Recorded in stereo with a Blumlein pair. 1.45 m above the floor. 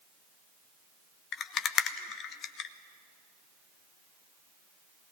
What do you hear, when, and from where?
1.3 s a rattle: 30° left, 0.9 m